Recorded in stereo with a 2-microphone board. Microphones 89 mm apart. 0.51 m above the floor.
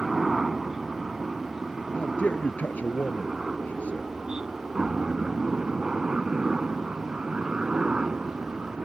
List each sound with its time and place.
0.0 s a helicopter: centre (ahead or behind); by 8.8 s 10° right (ahead or behind)
1.9 s a man speaking: 15° left (ahead or behind)